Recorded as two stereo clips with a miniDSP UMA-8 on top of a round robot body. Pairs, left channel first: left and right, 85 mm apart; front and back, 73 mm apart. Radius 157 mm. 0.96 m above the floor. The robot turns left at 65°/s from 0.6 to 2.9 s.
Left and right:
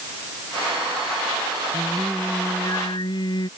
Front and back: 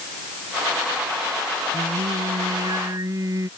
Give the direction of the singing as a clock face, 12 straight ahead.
5 o'clock.